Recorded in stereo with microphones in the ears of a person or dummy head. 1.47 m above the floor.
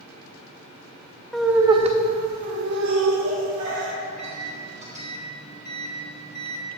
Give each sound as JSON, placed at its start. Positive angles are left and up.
{"t": 1.3, "sound": "laughter", "side_deg": 5, "distance_m": 0.7}
{"t": 4.0, "sound": "a microwave", "side_deg": -30, "distance_m": 1.0}